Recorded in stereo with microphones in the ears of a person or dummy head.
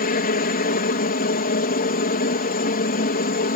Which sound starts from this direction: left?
A helicopter, at 0.0 s.